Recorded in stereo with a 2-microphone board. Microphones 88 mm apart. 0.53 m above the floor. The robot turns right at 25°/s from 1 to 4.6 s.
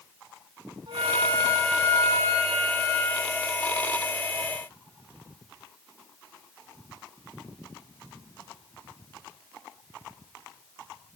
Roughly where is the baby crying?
I don't hear a baby crying.